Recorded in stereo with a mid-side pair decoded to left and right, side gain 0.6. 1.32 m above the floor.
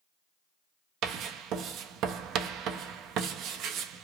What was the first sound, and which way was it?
Writing, 60° right.